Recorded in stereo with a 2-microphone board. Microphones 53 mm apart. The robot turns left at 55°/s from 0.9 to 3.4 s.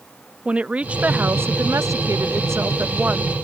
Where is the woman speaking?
25° right; by 3.3 s 160° right.